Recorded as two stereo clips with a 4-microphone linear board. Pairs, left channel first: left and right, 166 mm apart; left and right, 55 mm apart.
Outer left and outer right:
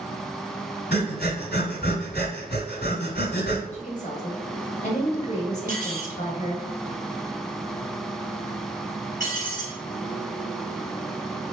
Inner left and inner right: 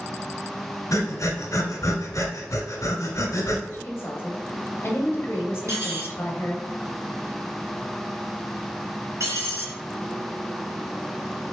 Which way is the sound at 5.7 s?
65° right (ahead or behind).